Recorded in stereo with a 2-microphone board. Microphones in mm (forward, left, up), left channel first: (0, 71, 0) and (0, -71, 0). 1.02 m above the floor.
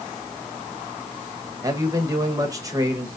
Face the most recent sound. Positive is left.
turn(degrees=-25)  # may be behind; listen again after turning